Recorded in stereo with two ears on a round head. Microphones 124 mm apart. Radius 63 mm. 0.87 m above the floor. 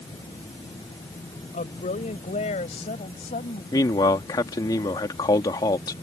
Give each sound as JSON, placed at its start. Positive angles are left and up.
{"t": 1.5, "sound": "a woman speaking", "side_deg": 55}
{"t": 3.7, "sound": "a man speaking", "side_deg": 25}